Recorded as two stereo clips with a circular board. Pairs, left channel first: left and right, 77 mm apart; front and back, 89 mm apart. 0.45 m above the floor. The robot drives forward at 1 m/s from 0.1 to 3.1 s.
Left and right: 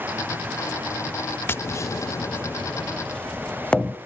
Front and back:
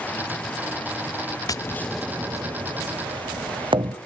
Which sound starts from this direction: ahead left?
Tapping, at 1.5 s.